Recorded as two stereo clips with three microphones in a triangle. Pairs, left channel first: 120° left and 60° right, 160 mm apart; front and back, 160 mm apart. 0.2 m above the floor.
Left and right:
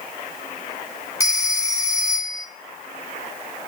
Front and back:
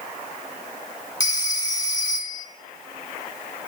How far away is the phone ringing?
About 1.0 m.